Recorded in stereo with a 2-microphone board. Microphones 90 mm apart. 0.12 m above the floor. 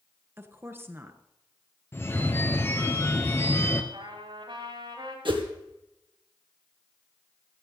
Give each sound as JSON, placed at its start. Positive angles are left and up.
{"t": 0.4, "sound": "a woman speaking", "side_deg": -25, "distance_m": 1.5}
{"t": 1.9, "sound": "a phone ringing", "side_deg": 25, "distance_m": 1.3}
{"t": 3.9, "sound": "a trumpet", "side_deg": -65, "distance_m": 9.5}
{"t": 5.2, "sound": "a whoosh", "side_deg": -65, "distance_m": 2.0}